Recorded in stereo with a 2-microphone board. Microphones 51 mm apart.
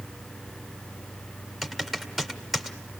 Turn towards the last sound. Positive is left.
turn(degrees=0)  # may be behind; listen again after turning